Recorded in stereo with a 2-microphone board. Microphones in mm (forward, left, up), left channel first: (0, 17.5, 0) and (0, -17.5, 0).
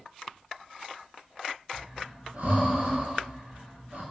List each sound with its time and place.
1.7 s breathing: 60° right (ahead or behind), 1.2 m